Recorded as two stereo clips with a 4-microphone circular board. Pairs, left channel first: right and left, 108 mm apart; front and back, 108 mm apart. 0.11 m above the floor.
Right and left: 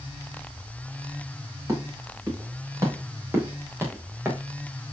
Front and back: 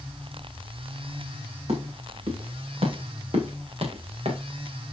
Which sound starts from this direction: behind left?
Footsteps, at 1.7 s.